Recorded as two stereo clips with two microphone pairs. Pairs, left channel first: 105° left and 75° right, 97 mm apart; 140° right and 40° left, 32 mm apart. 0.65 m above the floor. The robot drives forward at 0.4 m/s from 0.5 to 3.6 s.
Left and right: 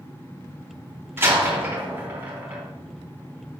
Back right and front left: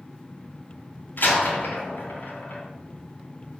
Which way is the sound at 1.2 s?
140° right.